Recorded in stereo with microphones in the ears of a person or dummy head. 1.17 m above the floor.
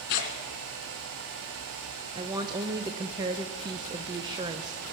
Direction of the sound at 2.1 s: 25° right (ahead or behind).